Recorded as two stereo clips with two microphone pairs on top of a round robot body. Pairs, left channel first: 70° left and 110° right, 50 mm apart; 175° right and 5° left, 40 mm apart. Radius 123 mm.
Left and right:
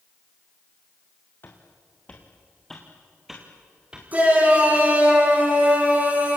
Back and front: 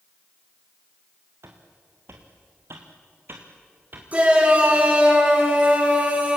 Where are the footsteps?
20° left, 3 m; by 4.0 s 35° right, 3.5 m.